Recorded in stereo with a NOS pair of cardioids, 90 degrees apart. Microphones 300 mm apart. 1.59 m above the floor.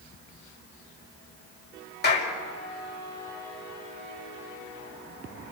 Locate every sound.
2.0 s a clap: 35° left, 5 m